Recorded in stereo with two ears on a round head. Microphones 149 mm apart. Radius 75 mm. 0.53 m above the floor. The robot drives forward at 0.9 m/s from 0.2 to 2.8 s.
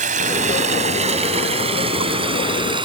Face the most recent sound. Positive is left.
turn(degrees=-30)  # may be behind; listen again after turning